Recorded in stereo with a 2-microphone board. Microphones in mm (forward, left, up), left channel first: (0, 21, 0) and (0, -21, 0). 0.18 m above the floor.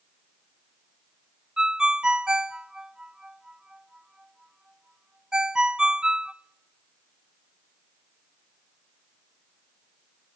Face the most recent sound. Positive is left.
turn(degrees=-15)  # may be behind; listen again after turning